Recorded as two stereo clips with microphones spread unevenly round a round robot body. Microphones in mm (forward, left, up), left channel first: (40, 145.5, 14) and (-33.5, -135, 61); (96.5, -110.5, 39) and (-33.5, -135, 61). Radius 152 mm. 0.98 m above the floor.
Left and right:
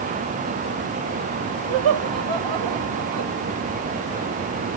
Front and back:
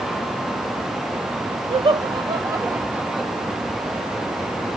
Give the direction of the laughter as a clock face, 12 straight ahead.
4 o'clock.